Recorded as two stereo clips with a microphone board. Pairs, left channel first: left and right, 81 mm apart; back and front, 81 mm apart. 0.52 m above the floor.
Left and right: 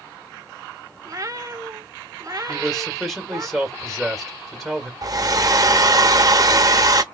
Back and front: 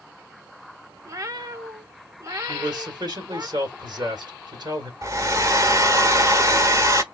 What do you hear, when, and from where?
1.1 s a cat meowing: 45° right, 0.6 m
2.5 s a man speaking: 5° left, 1.8 m
5.0 s a hair dryer: 50° right, 0.6 m